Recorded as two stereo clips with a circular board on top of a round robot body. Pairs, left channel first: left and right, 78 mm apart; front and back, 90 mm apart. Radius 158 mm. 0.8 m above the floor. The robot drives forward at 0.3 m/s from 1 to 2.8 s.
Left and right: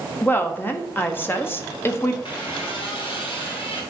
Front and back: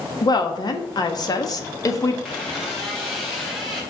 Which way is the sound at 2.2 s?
85° left.